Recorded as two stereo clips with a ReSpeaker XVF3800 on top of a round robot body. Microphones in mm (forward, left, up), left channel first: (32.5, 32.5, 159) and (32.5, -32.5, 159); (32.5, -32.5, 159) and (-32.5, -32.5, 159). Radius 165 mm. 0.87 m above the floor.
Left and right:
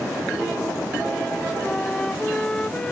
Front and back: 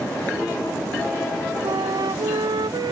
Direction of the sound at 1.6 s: 170° left.